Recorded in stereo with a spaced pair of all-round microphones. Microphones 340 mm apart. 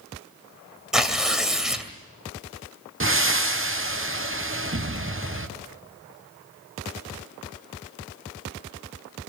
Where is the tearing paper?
Centre (ahead or behind), 2 m.